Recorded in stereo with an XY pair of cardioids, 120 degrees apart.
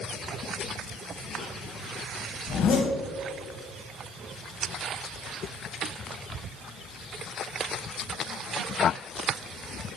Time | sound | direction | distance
2.5 | a zipper | 60° left | 3.5 m